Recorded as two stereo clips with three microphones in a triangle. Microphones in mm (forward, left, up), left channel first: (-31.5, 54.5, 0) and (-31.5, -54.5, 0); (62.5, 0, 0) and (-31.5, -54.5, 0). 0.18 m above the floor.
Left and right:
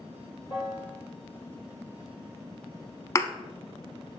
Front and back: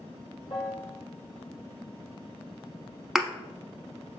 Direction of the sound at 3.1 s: 125° left.